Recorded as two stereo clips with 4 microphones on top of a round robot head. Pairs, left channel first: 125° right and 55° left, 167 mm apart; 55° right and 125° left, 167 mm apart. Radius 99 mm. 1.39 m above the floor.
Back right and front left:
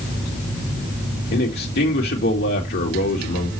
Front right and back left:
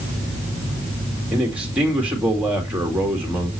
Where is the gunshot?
No gunshot in this recording.